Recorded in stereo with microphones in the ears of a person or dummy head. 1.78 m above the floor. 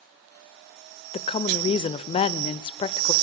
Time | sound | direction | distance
1.1 | a woman speaking | 35° left (ahead or behind) | 0.6 m